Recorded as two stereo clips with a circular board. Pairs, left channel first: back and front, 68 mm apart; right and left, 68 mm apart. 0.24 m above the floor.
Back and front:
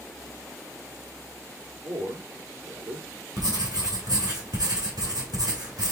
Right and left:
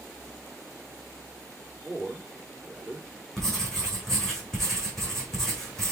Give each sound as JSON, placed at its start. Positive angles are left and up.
{"t": 1.8, "sound": "a man speaking", "azimuth_deg": 10, "distance_m": 5.0}
{"t": 3.4, "sound": "writing", "azimuth_deg": -5, "distance_m": 3.5}